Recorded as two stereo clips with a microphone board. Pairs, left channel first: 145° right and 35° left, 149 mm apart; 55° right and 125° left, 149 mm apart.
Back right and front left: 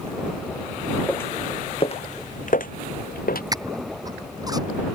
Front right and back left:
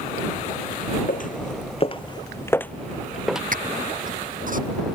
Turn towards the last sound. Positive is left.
turn(degrees=100)